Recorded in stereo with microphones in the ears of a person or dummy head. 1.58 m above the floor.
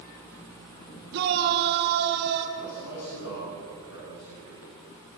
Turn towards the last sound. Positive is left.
turn(degrees=80)